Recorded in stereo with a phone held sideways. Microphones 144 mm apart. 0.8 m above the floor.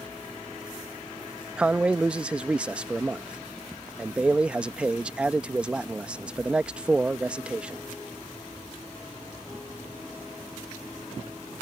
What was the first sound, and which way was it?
A man speaking, 10° right (ahead or behind).